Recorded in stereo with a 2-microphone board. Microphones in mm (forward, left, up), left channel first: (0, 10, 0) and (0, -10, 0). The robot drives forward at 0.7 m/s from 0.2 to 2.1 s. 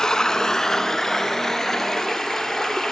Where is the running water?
35° left (ahead or behind), 1.2 m; by 2.9 s 15° left (ahead or behind), 2.5 m.